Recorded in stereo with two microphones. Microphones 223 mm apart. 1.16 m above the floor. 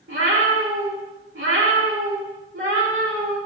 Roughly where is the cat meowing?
Right.